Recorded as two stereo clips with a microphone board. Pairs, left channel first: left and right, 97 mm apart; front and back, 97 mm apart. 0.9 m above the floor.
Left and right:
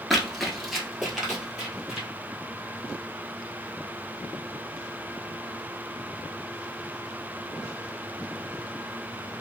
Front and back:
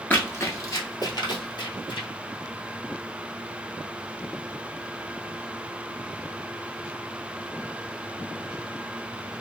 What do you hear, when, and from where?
0.1 s running footsteps: straight ahead, 0.9 m; by 2.1 s 5° right, 1.7 m